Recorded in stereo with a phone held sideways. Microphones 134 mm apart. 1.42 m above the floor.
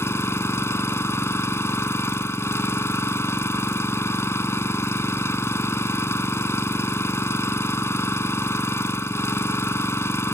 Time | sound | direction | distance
0.0 | an engine running | 20° left (ahead or behind) | ?